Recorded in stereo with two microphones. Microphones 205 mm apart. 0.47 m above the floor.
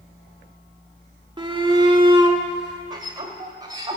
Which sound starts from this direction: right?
A shout, at 1.4 s.